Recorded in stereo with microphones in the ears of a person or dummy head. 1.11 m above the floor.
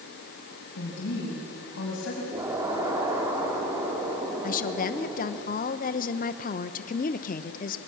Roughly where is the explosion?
Centre.